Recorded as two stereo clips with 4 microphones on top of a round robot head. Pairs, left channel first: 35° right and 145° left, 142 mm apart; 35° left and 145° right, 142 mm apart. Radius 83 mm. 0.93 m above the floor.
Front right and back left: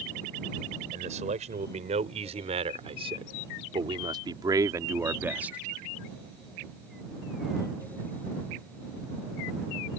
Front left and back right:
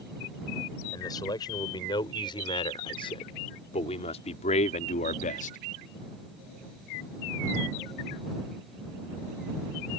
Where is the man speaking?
100° left; by 5.6 s 60° left.